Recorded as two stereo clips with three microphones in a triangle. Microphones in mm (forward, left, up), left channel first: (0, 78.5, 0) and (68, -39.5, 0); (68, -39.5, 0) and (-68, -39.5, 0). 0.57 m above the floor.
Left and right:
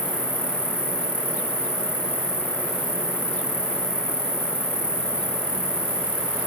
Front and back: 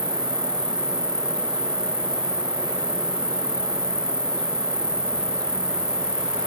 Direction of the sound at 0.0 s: 70° right.